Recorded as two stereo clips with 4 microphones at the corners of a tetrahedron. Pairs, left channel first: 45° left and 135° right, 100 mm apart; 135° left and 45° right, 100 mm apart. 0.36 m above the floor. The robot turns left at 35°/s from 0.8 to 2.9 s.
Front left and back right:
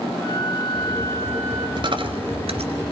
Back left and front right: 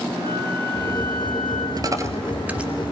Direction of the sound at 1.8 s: 95° right.